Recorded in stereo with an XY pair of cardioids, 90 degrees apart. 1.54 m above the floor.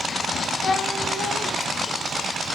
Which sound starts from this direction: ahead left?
A cat meowing, at 0.6 s.